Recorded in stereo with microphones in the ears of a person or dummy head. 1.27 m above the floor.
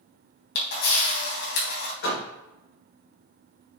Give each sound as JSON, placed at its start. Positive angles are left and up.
{"t": 0.6, "sound": "a camera shutter", "side_deg": 70, "distance_m": 3.0}
{"t": 2.0, "sound": "a door slam", "side_deg": 70, "distance_m": 3.0}